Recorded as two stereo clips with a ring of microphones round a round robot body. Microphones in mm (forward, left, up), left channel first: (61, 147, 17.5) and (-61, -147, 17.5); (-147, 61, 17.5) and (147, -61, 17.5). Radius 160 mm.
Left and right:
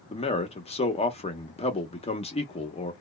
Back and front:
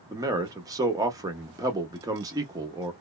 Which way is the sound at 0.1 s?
40° left.